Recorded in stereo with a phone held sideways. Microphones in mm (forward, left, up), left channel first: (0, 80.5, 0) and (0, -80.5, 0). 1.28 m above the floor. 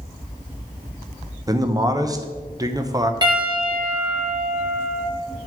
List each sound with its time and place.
1.5 s a man speaking: 20° right (ahead or behind), 0.7 m
3.2 s a piano: 25° right (ahead or behind), 1.7 m